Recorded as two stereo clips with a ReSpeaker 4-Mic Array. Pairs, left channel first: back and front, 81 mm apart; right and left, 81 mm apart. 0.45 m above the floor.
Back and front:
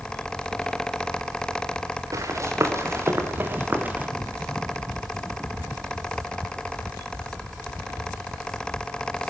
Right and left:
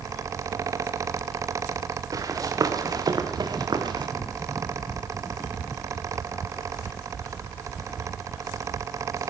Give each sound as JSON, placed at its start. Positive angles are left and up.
{"t": 2.1, "sound": "running footsteps", "azimuth_deg": 45, "distance_m": 3.5}